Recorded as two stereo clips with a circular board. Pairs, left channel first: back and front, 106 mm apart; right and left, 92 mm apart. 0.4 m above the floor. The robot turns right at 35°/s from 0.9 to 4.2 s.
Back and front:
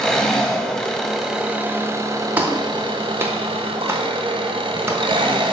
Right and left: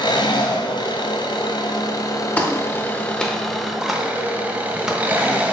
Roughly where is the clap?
Ahead right.